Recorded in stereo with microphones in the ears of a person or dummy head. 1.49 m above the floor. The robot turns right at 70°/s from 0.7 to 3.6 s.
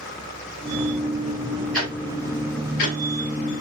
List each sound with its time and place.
1.7 s ticking: centre (ahead or behind), 1.7 m; by 3.0 s 85° left, 1.7 m